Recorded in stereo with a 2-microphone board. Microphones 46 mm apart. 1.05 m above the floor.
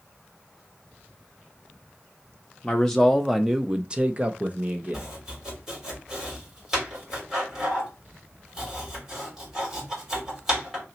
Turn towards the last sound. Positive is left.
turn(degrees=-10)  # may be behind; listen again after turning